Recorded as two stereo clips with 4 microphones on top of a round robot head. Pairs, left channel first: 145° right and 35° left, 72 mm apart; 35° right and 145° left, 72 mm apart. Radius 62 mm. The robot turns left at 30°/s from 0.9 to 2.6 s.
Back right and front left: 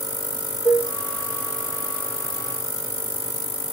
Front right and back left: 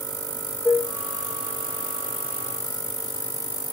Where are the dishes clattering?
140° right, 0.6 m.